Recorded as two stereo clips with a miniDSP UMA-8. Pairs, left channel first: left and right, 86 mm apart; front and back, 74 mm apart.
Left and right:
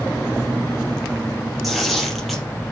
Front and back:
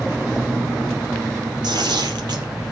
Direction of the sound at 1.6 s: Straight behind.